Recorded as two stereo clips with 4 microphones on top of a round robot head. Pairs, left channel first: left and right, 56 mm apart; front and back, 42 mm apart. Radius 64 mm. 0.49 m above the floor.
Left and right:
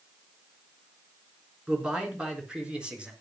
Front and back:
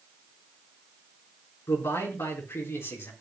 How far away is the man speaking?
About 6 m.